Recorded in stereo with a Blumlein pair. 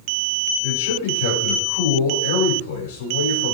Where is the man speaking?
55° left, 6.5 m.